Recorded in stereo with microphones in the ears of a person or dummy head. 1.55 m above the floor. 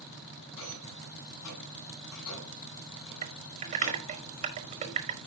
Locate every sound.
0.6 s a rattle: 80° left, 7 m
3.2 s typing on a keyboard: 35° right (ahead or behind), 1.5 m